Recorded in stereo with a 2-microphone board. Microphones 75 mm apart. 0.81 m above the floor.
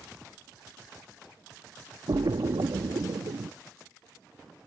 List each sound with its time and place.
2.1 s a splash: 70° right (ahead or behind)